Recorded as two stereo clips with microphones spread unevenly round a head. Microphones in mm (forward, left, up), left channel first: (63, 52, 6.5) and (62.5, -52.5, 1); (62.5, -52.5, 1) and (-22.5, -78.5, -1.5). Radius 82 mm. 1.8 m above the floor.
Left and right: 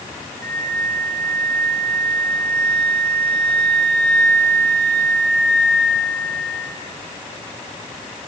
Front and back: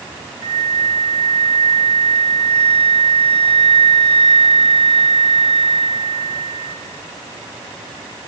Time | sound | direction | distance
0.4 | a flute | 170° left | 3.5 m